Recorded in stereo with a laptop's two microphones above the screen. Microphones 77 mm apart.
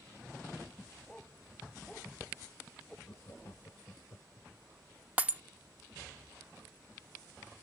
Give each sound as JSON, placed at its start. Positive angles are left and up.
{"t": 1.1, "sound": "a dog barking", "side_deg": 10}
{"t": 3.1, "sound": "laughter", "side_deg": 45}
{"t": 5.2, "sound": "breaking glass", "side_deg": -20}